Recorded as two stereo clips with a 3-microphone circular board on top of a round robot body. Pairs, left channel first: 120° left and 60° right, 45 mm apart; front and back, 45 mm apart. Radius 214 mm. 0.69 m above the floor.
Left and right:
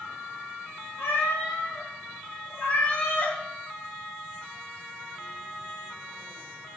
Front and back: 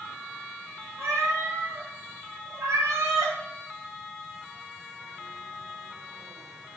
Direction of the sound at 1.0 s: 150° left.